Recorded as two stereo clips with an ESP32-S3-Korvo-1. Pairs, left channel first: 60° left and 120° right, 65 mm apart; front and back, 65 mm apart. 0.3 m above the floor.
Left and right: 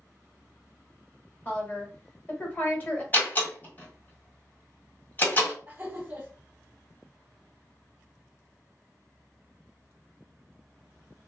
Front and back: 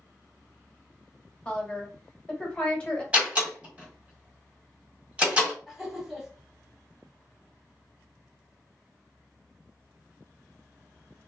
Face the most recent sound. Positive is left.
turn(degrees=-95)